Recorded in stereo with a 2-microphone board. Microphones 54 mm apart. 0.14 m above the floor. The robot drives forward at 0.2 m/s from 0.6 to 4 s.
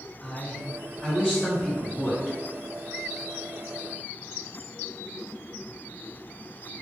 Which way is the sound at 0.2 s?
15° left (ahead or behind).